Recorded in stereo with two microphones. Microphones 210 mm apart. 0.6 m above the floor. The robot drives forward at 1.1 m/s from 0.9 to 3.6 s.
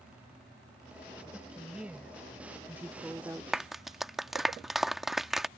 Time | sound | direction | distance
1.3 | a woman speaking | 5° right (ahead or behind) | ?
3.5 | a clap | centre (ahead or behind) | ?